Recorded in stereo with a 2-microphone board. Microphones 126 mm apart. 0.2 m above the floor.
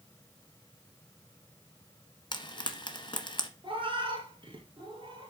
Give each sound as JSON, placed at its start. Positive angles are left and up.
{"t": 2.3, "sound": "frying", "side_deg": 40, "distance_m": 1.0}
{"t": 3.6, "sound": "a cat meowing", "side_deg": -40, "distance_m": 1.5}